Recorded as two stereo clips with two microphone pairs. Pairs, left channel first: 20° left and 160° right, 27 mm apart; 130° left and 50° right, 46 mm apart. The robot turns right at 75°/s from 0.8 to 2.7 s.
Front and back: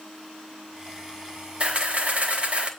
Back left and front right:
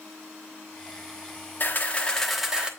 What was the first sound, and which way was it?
A camera shutter, 160° left.